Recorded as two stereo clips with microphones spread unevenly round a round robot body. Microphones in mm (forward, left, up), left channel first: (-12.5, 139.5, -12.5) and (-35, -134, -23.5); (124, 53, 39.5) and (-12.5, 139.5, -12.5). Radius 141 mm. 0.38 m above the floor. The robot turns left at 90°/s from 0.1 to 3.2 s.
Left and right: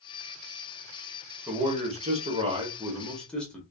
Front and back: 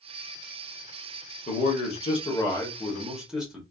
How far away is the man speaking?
About 0.9 m.